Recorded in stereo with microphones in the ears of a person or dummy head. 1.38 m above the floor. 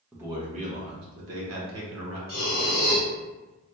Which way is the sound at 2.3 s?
60° left (ahead or behind).